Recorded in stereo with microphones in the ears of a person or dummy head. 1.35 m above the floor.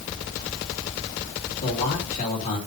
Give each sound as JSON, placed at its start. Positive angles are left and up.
{"t": 1.6, "sound": "a man speaking", "side_deg": 40, "distance_m": 4.0}